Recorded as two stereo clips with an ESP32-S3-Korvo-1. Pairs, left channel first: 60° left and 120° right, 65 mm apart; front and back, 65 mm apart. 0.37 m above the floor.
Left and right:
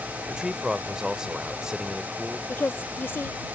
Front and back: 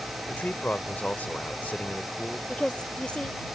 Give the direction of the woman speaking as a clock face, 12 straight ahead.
10 o'clock.